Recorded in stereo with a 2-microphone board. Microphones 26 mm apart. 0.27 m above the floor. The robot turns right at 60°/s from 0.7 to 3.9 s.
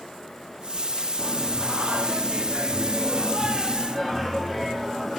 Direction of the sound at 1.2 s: 160° right.